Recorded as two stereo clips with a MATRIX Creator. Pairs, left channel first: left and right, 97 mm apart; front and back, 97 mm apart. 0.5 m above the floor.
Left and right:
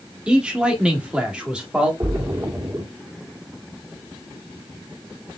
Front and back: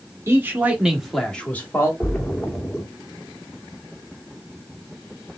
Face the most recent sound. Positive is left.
turn(degrees=-70)